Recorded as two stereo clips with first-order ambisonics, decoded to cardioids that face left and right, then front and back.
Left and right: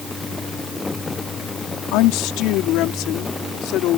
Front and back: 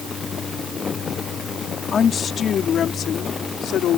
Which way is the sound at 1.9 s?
70° left.